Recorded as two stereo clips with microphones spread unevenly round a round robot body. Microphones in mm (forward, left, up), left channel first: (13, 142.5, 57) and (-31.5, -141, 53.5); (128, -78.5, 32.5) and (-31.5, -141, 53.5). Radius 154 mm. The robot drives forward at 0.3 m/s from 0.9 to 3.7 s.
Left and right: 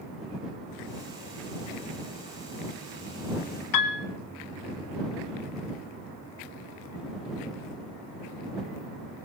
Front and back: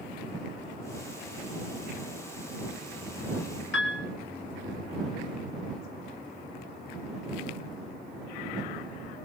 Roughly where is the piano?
Ahead left.